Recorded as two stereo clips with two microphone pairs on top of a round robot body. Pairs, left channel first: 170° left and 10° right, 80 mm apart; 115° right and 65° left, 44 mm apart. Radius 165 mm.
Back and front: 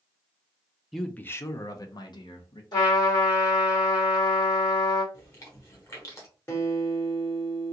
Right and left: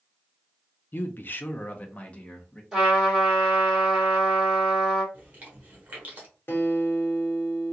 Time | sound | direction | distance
0.9 | a man speaking | 105° right | 0.5 m
2.7 | a trumpet | 140° left | 2.5 m
5.1 | chewing | 115° left | 1.4 m
6.5 | a guitar | 140° right | 1.5 m